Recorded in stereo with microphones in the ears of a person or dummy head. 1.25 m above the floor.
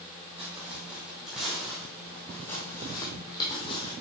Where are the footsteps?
5° right (ahead or behind), 3.5 m; by 3.9 s 35° left (ahead or behind), 2.5 m.